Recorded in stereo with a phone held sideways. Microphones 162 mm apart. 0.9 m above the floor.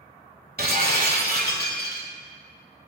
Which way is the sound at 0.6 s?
70° right (ahead or behind).